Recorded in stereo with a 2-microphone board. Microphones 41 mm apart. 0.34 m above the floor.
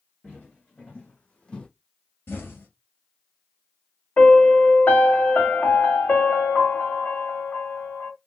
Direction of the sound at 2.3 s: 70° left (ahead or behind).